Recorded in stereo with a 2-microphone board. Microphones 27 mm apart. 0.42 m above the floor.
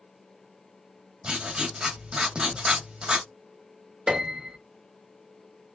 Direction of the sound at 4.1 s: 35° right (ahead or behind).